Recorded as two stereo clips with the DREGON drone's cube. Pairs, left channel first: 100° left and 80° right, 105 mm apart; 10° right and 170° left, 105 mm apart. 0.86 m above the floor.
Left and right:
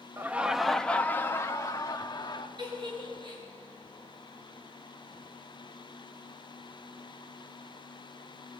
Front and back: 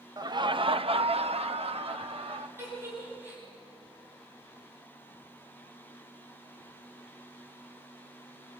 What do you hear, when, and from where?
0.2 s laughter: 145° right, 0.8 m; by 2.5 s 145° left, 1.6 m
2.6 s a giggle: 120° right, 8 m